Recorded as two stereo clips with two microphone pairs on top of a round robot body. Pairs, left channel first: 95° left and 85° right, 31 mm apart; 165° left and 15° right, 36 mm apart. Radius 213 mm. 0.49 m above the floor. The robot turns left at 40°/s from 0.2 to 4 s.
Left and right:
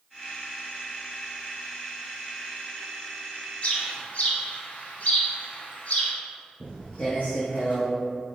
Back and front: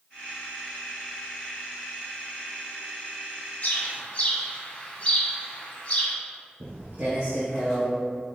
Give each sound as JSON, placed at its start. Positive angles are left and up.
{"t": 3.6, "sound": "a bird", "azimuth_deg": 130, "distance_m": 1.5}
{"t": 6.6, "sound": "footsteps", "azimuth_deg": -35, "distance_m": 0.6}